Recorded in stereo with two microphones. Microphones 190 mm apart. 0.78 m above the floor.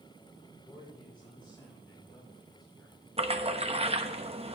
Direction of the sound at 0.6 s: 25° left (ahead or behind).